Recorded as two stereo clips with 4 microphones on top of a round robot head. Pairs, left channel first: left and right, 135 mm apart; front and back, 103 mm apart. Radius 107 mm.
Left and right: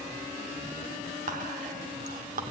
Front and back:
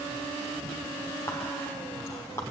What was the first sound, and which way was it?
Whispering, 75° right.